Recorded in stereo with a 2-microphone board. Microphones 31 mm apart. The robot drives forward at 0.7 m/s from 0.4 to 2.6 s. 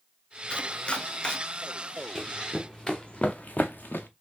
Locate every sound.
0.5 s chopping: 35° left (ahead or behind), 0.6 m; by 1.4 s 25° left (ahead or behind), 0.8 m
2.1 s running footsteps: 10° right (ahead or behind), 0.8 m; by 4.1 s 85° left, 0.8 m